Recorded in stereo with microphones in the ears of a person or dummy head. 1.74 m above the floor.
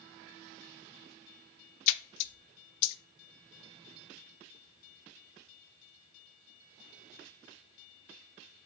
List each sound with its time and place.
1.9 s a splash: 80° left, 0.5 m